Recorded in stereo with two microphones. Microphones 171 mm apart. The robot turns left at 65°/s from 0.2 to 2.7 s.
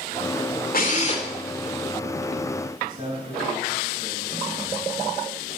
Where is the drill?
65° left, 2.5 m; by 1.3 s 30° left, 2.5 m.